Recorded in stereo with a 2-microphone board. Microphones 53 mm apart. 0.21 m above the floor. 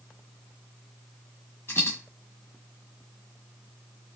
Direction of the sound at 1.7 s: 50° left (ahead or behind).